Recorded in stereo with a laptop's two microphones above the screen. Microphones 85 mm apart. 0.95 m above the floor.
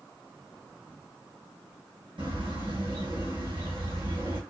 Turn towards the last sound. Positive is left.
turn(degrees=-75)  # may be behind; listen again after turning